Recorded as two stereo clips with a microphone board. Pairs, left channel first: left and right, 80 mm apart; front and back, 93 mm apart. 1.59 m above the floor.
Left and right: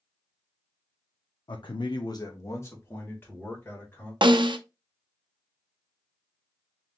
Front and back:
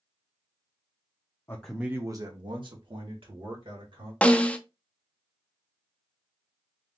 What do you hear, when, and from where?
1.5 s a man speaking: 65° left, 0.5 m; by 4.1 s 160° left, 2.5 m
4.2 s a snare drum: 75° right, 0.5 m